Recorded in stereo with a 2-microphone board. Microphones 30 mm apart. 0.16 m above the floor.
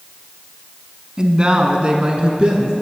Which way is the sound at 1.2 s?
30° right (ahead or behind).